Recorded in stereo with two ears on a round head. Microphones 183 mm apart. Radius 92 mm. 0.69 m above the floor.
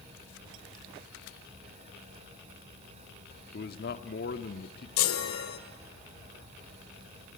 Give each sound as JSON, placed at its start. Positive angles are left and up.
{"t": 3.5, "sound": "a man speaking", "side_deg": 50, "distance_m": 1.3}
{"t": 5.0, "sound": "a chime", "side_deg": 75, "distance_m": 1.9}